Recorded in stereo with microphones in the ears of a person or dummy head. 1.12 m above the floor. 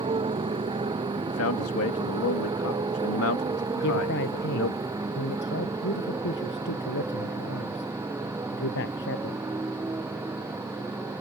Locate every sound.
0.0 s a motorcycle: 20° right (ahead or behind); by 11.2 s 10° right (ahead or behind)
1.3 s a man speaking: 75° left (ahead or behind)
3.8 s a man speaking: 60° left (ahead or behind)